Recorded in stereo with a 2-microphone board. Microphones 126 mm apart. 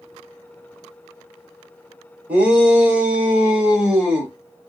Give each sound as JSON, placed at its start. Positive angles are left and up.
{"t": 2.3, "sound": "a shout", "side_deg": -10, "distance_m": 1.3}